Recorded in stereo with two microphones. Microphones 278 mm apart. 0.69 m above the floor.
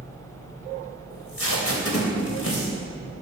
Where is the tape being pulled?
55° left (ahead or behind), 3.5 m.